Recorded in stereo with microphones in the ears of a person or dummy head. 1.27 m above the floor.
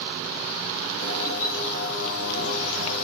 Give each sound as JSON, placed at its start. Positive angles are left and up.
{"t": 1.0, "sound": "a bird", "side_deg": 75, "distance_m": 1.1}